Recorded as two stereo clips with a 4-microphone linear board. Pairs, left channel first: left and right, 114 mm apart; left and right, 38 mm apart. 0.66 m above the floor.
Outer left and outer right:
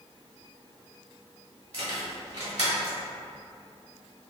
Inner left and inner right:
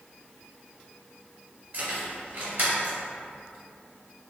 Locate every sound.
1.7 s keys jangling: 70° right (ahead or behind), 1.6 m